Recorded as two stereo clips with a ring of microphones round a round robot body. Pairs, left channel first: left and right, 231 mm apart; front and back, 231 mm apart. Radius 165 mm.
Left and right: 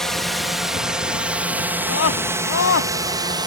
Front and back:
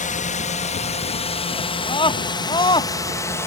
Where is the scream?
70° left.